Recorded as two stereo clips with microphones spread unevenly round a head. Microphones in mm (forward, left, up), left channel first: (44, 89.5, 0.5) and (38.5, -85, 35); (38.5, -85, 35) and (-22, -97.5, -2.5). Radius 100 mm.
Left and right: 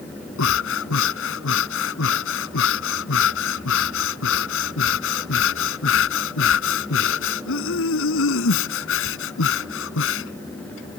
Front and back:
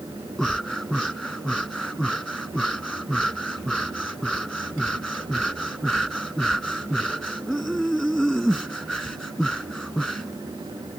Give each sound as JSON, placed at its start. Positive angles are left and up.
{"t": 0.4, "sound": "breathing", "azimuth_deg": 85}